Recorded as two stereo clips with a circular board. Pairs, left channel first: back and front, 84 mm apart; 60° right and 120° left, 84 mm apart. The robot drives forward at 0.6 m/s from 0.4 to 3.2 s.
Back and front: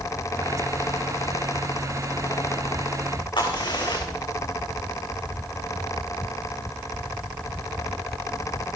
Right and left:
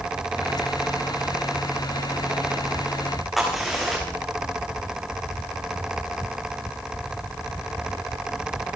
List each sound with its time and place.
3.4 s a crack: 155° right, 5.5 m